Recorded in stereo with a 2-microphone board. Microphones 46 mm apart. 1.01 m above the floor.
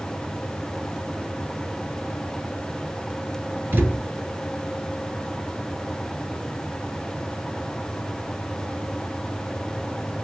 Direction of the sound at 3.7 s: 45° right (ahead or behind).